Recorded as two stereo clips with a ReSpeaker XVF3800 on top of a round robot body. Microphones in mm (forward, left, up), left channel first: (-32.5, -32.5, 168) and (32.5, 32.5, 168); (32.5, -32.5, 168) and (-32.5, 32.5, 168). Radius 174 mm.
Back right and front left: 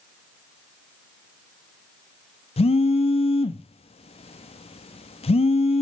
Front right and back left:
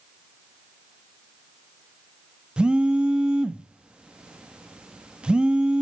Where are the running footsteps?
No running footsteps in this recording.